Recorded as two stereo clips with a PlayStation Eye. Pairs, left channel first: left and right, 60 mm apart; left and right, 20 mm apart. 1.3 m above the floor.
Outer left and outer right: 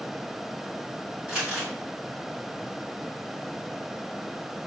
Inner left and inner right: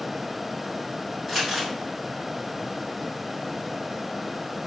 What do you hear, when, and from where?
1.3 s crumpling: 15° right (ahead or behind), 2 m